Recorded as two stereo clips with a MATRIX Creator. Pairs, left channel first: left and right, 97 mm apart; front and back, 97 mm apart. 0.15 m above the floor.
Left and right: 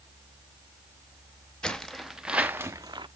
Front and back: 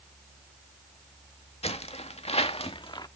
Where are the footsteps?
10° left, 1.3 m; by 3.1 s 45° right, 0.7 m.